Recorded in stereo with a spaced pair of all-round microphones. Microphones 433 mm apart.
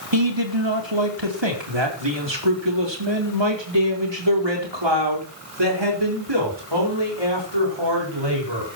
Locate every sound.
0.1 s a man speaking: 80° right, 2.5 m; by 8.7 s 70° right (ahead or behind), 7 m